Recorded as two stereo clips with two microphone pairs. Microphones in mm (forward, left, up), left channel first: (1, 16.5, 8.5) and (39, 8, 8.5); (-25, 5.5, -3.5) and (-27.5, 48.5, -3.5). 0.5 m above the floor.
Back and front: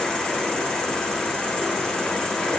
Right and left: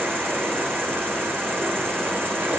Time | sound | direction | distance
0.0 | an insect | 100° left | 2.5 m